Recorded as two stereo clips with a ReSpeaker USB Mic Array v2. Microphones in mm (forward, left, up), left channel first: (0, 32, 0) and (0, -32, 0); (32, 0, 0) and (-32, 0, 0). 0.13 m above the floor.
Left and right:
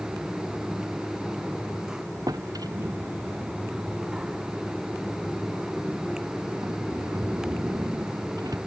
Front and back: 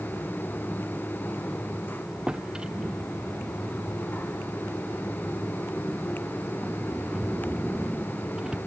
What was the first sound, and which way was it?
A drawer, 105° right.